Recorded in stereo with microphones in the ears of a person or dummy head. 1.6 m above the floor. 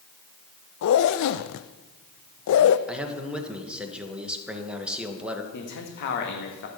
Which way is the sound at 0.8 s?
65° left (ahead or behind).